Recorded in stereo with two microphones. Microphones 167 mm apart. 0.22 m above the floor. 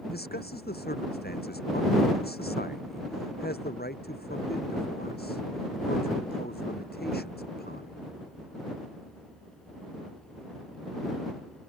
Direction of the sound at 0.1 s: 65° left (ahead or behind).